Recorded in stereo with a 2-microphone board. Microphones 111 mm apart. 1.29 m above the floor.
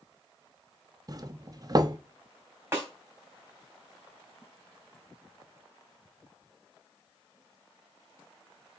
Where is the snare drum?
25° right (ahead or behind), 3.5 m.